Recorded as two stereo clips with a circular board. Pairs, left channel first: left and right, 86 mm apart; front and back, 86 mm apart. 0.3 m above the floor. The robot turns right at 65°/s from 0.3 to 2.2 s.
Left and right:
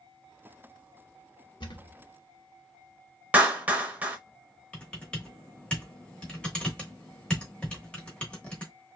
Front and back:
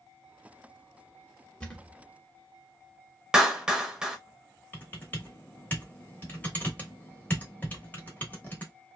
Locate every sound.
1.6 s a thud: 75° left, 0.8 m; by 2.0 s 100° left, 0.8 m
3.3 s a clap: 115° right, 0.7 m
4.7 s typing on a keyboard: 30° left, 0.9 m